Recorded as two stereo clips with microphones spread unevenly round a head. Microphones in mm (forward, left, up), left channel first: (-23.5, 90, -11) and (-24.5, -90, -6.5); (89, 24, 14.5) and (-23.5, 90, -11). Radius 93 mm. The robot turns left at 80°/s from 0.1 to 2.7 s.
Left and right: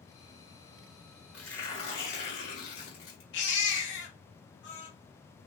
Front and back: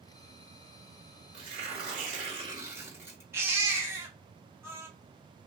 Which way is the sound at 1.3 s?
175° right.